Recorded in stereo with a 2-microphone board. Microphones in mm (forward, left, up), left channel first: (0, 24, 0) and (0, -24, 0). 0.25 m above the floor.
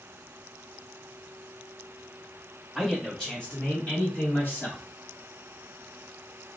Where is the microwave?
No microwave in this recording.